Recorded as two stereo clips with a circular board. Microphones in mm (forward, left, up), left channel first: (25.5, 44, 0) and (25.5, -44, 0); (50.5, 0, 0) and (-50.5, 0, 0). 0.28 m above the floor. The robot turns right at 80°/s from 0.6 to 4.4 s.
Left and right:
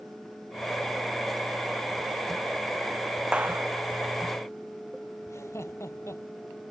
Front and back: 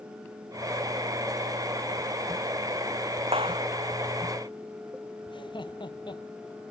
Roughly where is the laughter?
Ahead left.